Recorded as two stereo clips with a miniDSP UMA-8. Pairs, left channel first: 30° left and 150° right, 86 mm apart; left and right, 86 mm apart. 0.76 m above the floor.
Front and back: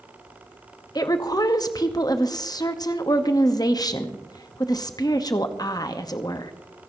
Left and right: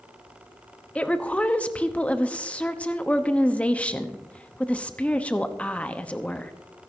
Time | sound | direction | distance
0.9 | a woman speaking | 20° left | 0.9 m